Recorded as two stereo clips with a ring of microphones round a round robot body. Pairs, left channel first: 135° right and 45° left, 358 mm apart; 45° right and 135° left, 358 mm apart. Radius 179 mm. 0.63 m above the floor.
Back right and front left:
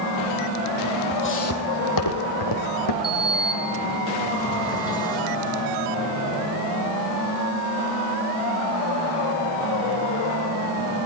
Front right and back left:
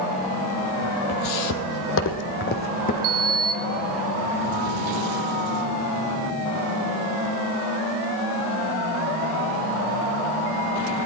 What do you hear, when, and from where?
1.1 s footsteps: 75° right, 1.3 m; by 2.9 s 115° right, 2.5 m
3.0 s a sliding door: 145° left, 0.6 m